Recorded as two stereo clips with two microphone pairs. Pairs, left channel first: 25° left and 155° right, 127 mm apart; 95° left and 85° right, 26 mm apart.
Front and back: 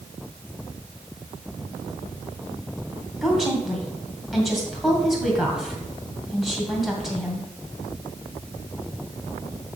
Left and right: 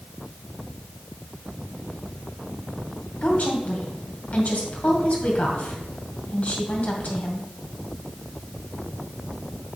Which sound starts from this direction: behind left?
A woman speaking, at 3.2 s.